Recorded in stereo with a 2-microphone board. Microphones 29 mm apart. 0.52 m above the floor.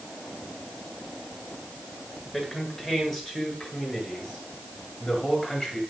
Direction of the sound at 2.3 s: 5° right (ahead or behind).